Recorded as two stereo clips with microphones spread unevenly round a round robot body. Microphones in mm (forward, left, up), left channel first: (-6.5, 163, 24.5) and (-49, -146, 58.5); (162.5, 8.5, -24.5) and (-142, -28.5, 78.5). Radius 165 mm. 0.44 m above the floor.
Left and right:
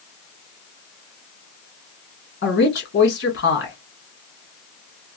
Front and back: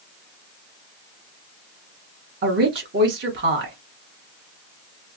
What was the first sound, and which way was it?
A woman speaking, 110° left.